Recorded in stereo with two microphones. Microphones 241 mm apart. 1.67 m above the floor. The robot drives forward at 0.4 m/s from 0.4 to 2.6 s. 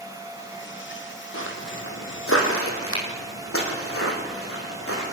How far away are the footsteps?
About 4.5 m.